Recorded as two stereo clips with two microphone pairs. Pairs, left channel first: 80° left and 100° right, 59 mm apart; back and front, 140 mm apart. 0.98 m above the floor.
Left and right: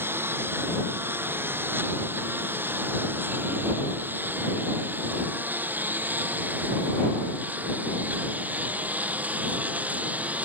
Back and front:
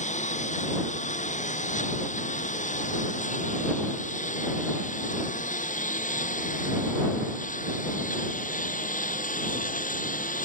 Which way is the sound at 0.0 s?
150° right.